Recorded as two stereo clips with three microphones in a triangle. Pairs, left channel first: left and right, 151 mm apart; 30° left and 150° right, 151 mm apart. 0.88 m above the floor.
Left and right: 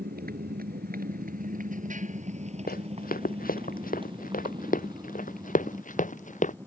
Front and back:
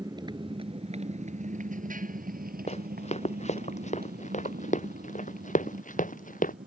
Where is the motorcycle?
85° right; by 6.7 s 160° right.